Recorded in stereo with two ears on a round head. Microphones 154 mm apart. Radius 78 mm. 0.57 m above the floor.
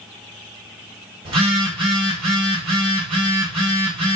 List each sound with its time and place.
1.2 s a phone buzzing: 35° right (ahead or behind), 3 m